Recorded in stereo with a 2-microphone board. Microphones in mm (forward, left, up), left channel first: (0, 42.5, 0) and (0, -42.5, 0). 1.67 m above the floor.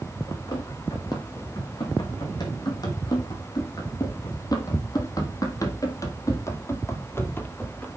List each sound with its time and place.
0.3 s running footsteps: 50° left (ahead or behind), 4.5 m; by 7.9 s 20° left (ahead or behind), 1.9 m